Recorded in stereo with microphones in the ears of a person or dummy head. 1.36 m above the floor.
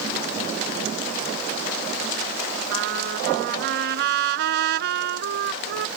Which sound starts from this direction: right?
A trumpet, at 2.7 s.